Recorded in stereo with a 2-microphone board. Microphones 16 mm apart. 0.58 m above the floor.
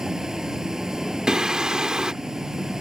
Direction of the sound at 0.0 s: 30° right (ahead or behind).